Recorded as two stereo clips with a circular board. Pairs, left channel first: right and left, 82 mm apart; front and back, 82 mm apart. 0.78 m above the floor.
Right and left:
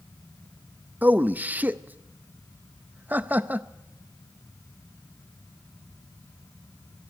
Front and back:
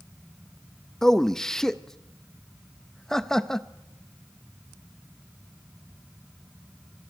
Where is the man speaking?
70° left, 0.6 m.